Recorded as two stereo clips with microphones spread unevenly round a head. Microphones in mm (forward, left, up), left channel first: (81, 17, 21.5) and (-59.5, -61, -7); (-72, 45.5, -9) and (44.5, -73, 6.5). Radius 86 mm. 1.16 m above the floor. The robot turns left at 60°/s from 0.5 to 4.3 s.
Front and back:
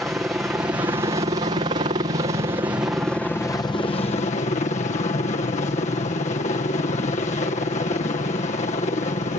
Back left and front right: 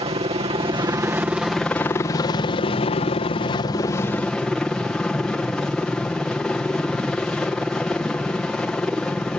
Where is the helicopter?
75° right; by 9.4 s 55° left.